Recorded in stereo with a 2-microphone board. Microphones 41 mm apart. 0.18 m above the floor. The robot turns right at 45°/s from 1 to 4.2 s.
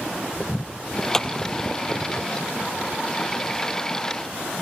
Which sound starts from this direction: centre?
A clap, at 1.1 s.